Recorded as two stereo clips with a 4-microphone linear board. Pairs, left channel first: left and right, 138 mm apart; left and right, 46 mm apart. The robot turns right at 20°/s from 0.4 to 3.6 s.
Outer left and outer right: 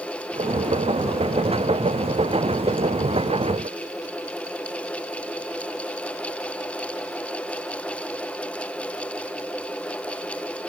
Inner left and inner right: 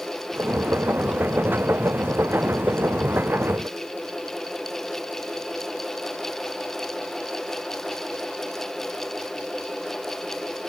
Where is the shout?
No shout in this recording.